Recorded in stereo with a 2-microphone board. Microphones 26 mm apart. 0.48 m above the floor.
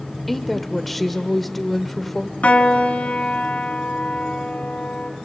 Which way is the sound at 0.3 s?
5° left (ahead or behind).